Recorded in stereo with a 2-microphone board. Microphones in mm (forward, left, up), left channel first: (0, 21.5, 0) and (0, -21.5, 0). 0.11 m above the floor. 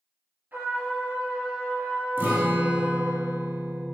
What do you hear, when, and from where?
0.5 s a trumpet: 45° right (ahead or behind), 1.2 m
2.2 s a guitar: 50° right (ahead or behind), 0.7 m